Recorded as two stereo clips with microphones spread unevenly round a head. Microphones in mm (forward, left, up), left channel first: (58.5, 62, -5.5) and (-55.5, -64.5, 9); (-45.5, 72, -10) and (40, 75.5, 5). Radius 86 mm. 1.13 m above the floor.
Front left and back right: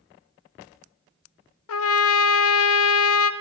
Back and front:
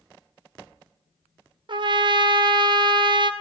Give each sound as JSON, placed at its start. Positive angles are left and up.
{"t": 1.7, "sound": "a trumpet", "azimuth_deg": 40, "distance_m": 0.5}